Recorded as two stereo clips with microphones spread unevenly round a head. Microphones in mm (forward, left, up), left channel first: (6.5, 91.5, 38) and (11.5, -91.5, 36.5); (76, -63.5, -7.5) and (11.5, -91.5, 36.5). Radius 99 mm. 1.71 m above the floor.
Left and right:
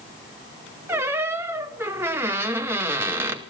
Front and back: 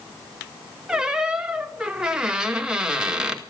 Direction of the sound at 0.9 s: 165° right.